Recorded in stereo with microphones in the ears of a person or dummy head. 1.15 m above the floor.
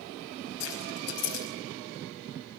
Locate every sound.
0.6 s keys jangling: 70° left (ahead or behind), 4.5 m